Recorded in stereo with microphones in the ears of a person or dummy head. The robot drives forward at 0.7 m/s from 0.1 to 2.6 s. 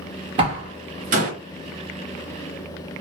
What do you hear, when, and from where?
0.4 s a door slam: 30° right (ahead or behind), 1.3 m; by 1.3 s 45° right (ahead or behind), 0.8 m